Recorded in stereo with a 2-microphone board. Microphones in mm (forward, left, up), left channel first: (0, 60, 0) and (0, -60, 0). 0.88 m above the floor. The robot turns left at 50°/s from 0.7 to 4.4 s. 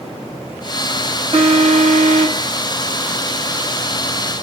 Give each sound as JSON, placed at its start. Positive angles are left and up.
{"t": 1.3, "sound": "an alarm", "azimuth_deg": -50, "distance_m": 2.5}